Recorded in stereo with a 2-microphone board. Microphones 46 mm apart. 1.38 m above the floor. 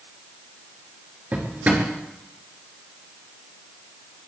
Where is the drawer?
40° right (ahead or behind), 5.5 m.